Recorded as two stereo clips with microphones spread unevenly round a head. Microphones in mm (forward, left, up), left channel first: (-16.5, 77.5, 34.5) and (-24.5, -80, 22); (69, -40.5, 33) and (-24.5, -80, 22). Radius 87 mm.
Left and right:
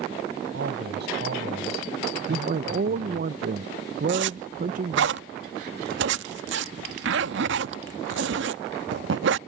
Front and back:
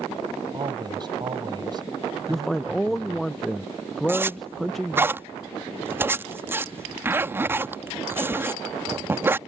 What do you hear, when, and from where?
0.5 s a man speaking: 110° right
2.3 s a man speaking: 70° right
4.1 s a zipper: 90° right